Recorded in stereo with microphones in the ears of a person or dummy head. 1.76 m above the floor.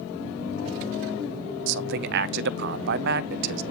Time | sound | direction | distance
1.7 | a man speaking | 60° right (ahead or behind) | 0.7 m